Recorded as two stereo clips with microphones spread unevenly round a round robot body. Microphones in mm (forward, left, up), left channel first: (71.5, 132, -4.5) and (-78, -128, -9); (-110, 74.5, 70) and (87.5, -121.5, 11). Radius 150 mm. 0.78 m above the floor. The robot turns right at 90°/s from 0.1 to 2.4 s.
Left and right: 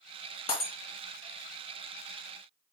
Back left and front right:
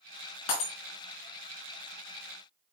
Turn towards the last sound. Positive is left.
turn(degrees=-55)